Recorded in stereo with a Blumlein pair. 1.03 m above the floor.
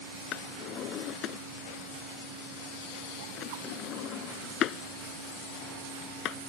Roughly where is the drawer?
Ahead left.